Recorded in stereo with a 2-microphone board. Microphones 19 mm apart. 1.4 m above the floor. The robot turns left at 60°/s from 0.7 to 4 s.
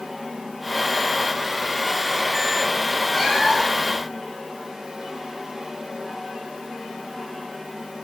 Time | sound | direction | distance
3.1 | a cat meowing | 15° right | 3.5 m